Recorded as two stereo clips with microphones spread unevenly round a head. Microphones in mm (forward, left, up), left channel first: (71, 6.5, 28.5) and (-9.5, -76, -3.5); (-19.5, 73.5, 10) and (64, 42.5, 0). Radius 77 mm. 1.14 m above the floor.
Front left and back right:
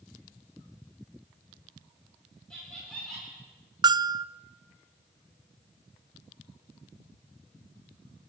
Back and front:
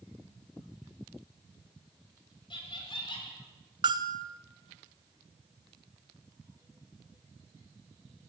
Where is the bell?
75° right, 0.6 m.